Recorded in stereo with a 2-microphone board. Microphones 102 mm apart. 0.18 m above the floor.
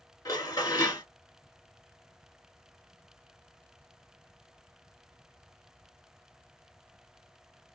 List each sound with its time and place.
0.2 s dishes clattering: 40° left (ahead or behind), 1.4 m